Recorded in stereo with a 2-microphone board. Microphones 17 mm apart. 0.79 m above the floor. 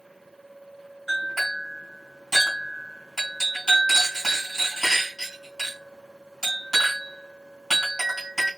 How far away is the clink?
About 3 m.